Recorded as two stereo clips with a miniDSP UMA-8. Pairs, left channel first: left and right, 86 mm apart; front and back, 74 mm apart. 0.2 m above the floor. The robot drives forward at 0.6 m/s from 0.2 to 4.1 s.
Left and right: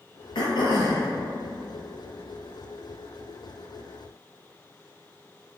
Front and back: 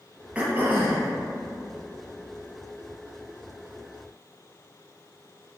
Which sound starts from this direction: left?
Throat clearing, at 0.3 s.